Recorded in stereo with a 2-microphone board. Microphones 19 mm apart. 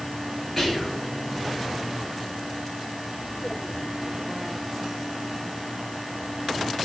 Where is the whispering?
Centre (ahead or behind), 1.5 m.